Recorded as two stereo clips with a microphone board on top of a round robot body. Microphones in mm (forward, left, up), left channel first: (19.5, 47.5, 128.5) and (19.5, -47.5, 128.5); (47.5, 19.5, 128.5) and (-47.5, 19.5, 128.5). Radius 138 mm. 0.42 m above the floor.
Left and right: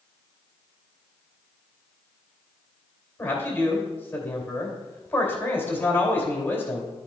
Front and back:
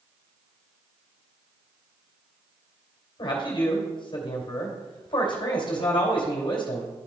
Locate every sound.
3.2 s a man speaking: 25° left, 2.5 m